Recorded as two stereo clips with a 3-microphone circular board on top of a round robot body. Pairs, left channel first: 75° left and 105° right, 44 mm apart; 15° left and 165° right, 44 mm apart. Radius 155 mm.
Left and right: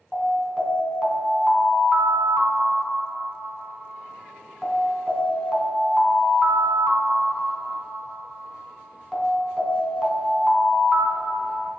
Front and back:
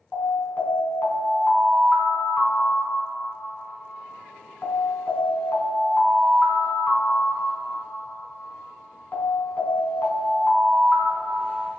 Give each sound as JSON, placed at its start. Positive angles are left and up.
{"t": 0.1, "sound": "an alarm", "azimuth_deg": -20, "distance_m": 2.5}